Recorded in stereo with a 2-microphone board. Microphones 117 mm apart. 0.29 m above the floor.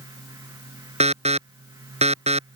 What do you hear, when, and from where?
1.0 s an alarm: 75° right (ahead or behind)